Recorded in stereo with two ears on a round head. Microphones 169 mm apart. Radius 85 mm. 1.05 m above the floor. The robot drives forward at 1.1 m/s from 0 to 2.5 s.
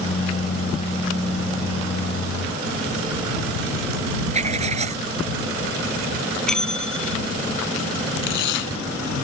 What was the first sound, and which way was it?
Writing, 35° right (ahead or behind).